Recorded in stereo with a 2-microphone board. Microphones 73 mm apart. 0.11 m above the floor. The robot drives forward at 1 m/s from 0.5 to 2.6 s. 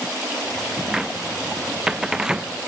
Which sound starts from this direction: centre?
A cupboard door, at 0.9 s.